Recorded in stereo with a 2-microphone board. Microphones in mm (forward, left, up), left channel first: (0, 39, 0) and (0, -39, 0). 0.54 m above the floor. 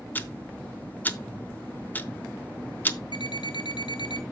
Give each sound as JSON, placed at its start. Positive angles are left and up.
{"t": 0.1, "sound": "ticking", "side_deg": 20, "distance_m": 0.7}
{"t": 3.1, "sound": "an alarm clock", "side_deg": 75, "distance_m": 1.0}